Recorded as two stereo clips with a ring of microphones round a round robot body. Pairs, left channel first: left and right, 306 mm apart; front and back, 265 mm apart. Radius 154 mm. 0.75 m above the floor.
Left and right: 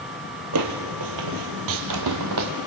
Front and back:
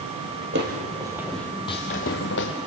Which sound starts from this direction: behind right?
Footsteps, at 0.5 s.